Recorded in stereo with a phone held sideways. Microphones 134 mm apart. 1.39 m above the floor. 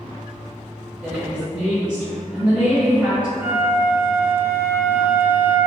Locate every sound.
1.0 s a woman speaking: 10° right (ahead or behind), 1.3 m
3.4 s a flute: 15° right (ahead or behind), 0.5 m